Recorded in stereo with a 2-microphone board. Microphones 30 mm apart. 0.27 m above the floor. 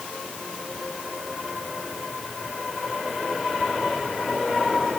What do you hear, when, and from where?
Only background noise.